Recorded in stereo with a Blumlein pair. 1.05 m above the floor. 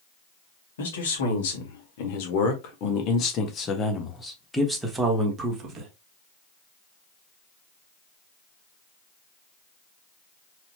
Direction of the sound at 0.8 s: 65° left.